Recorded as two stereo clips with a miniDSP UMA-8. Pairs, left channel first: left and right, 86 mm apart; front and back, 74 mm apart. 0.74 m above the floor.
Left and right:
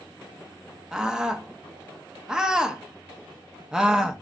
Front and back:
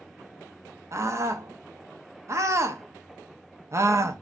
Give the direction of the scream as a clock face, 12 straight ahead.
6 o'clock.